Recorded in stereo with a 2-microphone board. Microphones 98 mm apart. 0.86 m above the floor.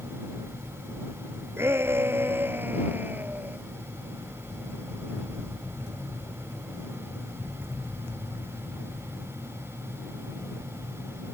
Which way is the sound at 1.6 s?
25° right (ahead or behind).